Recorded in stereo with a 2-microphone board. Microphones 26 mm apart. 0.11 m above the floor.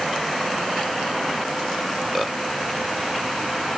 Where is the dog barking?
No dog barking in this recording.